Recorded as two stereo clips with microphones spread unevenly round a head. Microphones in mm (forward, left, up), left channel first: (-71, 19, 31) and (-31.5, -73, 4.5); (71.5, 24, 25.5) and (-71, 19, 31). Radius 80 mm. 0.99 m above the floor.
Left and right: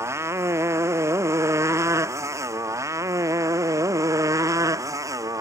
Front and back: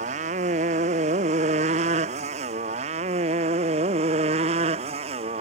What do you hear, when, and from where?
0.0 s a motorcycle: 130° right; by 5.4 s 125° right